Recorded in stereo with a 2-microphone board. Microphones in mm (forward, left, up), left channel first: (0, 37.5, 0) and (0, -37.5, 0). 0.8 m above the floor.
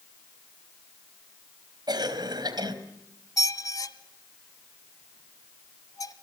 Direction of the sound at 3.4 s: 55° left (ahead or behind).